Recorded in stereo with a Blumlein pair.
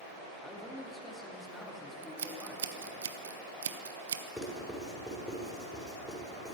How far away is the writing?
About 5.5 m.